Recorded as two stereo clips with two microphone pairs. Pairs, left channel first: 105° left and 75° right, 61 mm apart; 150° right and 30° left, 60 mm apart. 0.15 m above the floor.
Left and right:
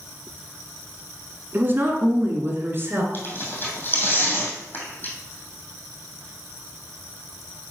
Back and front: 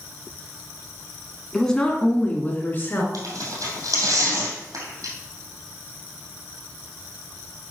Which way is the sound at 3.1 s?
50° left.